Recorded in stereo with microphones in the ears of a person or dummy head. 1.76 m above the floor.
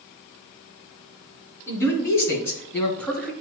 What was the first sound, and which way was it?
A man speaking, 20° left (ahead or behind).